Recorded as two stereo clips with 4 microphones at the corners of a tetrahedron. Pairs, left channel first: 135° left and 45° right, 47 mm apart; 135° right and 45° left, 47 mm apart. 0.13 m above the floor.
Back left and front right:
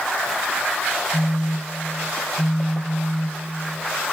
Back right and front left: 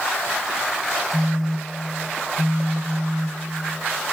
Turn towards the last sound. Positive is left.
turn(degrees=125)